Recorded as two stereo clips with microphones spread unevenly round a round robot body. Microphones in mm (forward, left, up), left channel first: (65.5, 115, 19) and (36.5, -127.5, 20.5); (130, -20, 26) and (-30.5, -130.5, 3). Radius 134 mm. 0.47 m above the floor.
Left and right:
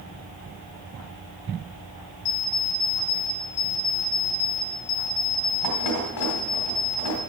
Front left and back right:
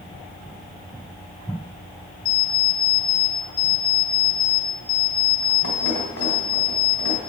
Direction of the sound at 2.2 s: 75° left.